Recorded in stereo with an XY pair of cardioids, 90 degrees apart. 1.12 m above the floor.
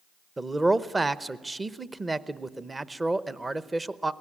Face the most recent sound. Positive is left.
turn(degrees=-20)